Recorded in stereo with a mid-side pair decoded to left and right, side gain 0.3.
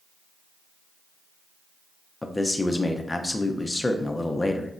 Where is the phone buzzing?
I don't hear a phone buzzing.